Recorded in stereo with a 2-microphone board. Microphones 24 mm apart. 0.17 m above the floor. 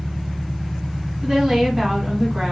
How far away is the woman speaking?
About 1.3 m.